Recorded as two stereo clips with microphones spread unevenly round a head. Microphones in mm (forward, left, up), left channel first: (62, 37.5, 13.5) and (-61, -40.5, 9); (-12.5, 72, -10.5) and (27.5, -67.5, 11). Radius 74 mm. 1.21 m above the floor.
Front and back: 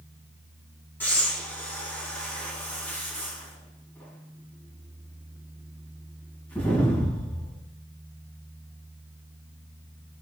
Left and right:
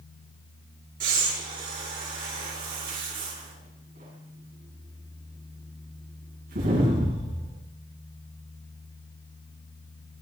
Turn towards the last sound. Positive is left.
turn(degrees=-45)